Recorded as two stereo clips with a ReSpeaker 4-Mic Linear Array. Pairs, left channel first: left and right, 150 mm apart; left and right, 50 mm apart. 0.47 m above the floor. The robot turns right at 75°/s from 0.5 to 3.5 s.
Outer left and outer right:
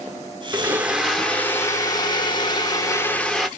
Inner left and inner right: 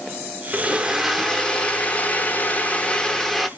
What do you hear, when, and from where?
0.5 s a blender: 45° right, 0.7 m; by 3.5 s straight behind, 0.7 m